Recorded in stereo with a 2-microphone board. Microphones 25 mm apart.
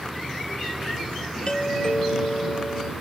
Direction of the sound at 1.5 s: 40° left (ahead or behind).